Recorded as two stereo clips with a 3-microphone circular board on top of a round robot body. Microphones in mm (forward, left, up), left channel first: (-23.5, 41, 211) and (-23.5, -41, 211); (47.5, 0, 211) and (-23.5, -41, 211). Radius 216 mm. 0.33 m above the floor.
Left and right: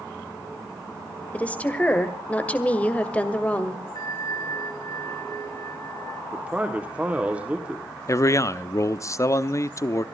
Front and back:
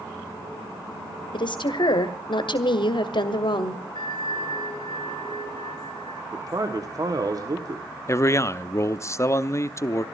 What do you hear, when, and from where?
1.3 s a woman speaking: 15° left, 2 m
4.0 s a bell: 50° left, 3.5 m
6.3 s a man speaking: 160° right, 1.9 m
8.1 s a man speaking: 65° left, 0.9 m